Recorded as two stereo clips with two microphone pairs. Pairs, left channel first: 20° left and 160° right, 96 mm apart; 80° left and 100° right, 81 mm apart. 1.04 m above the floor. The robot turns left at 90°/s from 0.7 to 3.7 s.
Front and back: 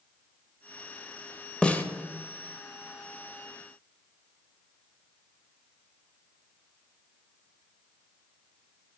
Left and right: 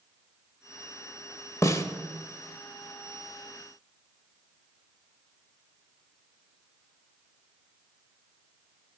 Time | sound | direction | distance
1.6 | a snare drum | 95° left | 0.9 m